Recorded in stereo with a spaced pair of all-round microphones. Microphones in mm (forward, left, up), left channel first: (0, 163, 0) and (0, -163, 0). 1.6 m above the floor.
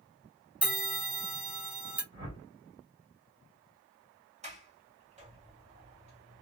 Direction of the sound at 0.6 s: 5° right (ahead or behind).